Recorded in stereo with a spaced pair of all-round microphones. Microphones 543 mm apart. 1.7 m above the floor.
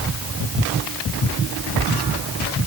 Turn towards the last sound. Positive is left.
No sound to turn to.